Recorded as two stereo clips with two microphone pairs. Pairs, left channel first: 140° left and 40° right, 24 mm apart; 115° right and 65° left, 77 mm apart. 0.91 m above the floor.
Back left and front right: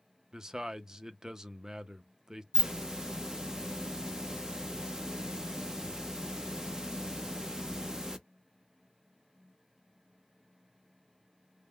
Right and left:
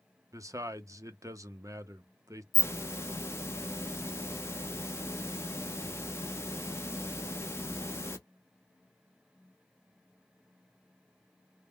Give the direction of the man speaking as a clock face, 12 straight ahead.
11 o'clock.